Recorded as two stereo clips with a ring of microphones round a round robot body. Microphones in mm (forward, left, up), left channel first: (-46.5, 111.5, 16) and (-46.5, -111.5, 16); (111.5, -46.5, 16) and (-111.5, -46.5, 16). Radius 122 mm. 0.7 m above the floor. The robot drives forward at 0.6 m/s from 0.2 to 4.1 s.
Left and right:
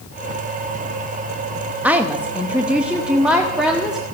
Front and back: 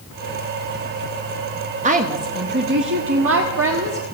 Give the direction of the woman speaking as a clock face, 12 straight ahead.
6 o'clock.